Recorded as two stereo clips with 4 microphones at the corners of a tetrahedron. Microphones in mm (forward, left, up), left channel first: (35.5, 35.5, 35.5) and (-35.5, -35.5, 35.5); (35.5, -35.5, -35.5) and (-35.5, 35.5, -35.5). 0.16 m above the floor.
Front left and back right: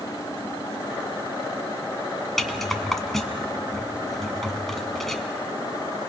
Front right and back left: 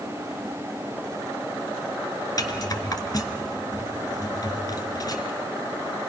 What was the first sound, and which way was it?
A rattle, 40° right.